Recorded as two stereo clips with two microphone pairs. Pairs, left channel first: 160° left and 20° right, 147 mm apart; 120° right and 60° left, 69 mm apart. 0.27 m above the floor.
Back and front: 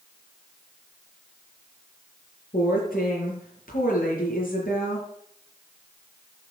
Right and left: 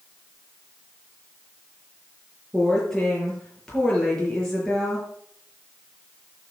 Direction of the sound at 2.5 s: 155° left.